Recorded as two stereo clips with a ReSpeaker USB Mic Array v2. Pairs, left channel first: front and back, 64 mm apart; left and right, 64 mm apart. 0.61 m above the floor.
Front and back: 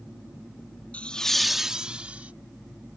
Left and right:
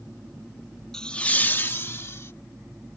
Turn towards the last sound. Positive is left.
turn(degrees=120)